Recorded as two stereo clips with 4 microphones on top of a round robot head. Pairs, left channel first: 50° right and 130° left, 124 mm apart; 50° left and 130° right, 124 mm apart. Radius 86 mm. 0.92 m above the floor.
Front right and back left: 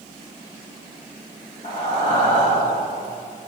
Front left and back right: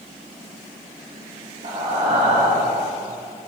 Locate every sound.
1.6 s breathing: 90° right, 1.8 m